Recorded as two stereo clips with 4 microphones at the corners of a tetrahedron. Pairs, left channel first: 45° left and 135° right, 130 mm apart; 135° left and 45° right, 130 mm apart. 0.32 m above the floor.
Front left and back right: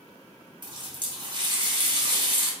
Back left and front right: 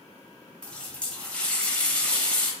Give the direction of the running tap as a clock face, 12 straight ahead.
5 o'clock.